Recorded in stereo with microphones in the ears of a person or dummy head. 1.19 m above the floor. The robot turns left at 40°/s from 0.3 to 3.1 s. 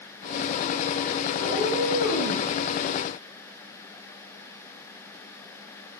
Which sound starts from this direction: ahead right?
A cat meowing, at 1.4 s.